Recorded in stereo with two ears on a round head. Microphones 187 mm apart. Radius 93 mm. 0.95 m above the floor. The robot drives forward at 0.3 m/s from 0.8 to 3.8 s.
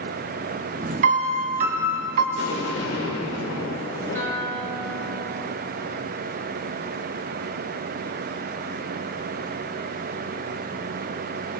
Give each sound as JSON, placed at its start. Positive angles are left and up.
{"t": 1.0, "sound": "a piano", "side_deg": -40, "distance_m": 1.2}
{"t": 2.4, "sound": "an explosion", "side_deg": 75, "distance_m": 2.5}
{"t": 4.2, "sound": "a guitar", "side_deg": 10, "distance_m": 4.0}